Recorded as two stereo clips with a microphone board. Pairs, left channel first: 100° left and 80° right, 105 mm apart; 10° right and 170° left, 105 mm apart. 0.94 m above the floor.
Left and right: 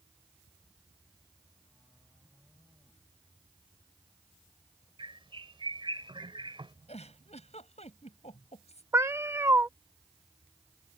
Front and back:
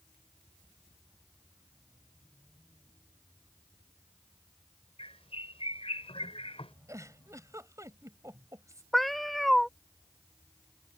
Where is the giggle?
105° left.